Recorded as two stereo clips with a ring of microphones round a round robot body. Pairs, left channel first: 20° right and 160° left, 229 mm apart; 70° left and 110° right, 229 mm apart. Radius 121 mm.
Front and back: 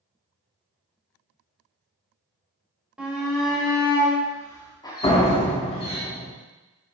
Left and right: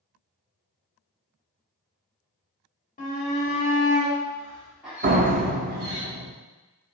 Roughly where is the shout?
Left.